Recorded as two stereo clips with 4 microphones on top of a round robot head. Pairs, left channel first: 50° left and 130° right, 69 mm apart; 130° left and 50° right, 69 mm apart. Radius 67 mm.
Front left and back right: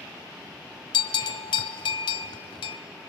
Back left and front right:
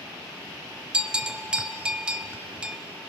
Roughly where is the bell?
Ahead left.